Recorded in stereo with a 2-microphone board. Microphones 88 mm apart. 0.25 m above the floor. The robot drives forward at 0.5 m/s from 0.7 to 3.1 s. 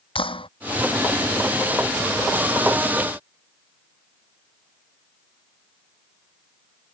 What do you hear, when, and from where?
0.1 s a clap: 85° left